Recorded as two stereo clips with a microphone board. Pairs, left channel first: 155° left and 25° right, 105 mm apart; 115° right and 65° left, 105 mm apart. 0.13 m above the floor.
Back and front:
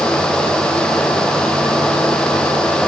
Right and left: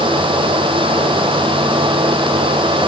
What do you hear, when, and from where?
Only background noise.